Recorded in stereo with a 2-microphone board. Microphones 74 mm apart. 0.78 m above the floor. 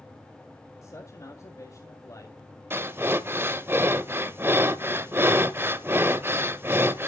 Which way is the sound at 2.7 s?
35° right (ahead or behind).